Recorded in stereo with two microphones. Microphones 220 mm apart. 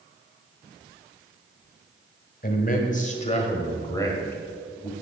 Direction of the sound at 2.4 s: 40° left (ahead or behind).